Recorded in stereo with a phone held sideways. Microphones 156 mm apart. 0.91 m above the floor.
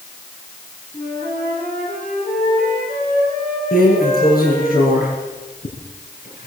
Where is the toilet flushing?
I don't hear a toilet flushing.